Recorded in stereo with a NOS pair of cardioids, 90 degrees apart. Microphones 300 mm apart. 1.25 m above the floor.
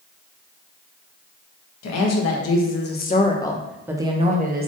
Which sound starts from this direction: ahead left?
A woman speaking, at 1.8 s.